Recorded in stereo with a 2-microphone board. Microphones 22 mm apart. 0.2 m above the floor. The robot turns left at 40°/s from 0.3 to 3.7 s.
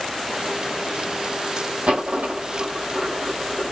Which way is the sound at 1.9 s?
80° right.